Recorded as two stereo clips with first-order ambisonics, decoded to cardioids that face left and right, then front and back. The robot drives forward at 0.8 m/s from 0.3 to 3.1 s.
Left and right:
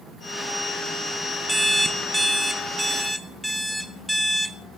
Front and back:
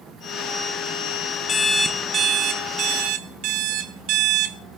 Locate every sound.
1.5 s an alarm clock: 5° right, 0.7 m; by 4.6 s straight behind, 1.2 m